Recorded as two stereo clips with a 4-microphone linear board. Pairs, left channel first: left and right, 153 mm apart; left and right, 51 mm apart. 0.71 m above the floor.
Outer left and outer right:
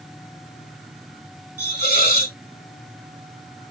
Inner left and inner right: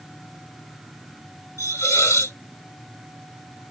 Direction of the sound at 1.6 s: 85° left.